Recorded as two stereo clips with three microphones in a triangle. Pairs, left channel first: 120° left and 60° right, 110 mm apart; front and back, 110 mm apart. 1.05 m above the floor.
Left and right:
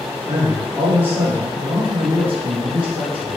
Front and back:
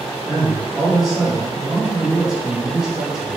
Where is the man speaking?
95° right, 0.7 m.